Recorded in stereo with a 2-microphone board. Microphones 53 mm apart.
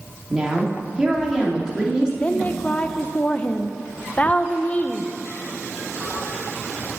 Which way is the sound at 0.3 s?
15° right (ahead or behind).